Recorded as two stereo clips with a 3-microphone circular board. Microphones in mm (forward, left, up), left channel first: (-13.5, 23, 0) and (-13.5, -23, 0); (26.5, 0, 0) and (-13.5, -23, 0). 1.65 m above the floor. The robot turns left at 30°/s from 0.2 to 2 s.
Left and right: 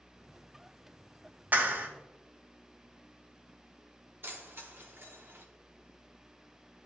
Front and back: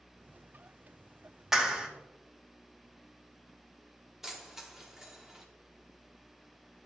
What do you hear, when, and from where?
1.5 s a clap: 75° right, 1.1 m; by 1.9 s 85° right, 1.1 m
4.2 s keys jangling: 70° right, 1.1 m